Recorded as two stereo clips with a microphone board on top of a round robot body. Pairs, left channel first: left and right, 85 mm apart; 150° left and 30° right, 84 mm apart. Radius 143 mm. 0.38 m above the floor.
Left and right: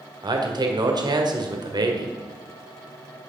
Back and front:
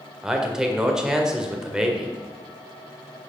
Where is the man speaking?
110° right, 2 m.